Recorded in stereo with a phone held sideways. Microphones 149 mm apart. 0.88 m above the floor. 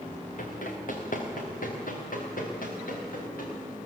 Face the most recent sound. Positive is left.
turn(degrees=70)  # may be behind; listen again after turning